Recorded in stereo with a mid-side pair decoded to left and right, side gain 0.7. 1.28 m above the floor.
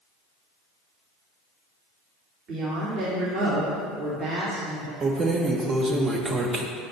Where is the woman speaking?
45° right, 2.5 m.